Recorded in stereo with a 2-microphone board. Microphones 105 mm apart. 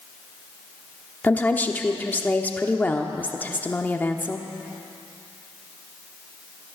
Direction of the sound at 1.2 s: 15° left (ahead or behind).